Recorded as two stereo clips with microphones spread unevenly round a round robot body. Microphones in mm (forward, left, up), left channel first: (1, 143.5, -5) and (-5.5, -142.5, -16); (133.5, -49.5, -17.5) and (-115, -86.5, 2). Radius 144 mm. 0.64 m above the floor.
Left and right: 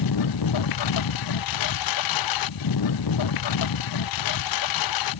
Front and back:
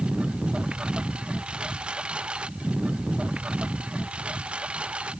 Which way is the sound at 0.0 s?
100° left.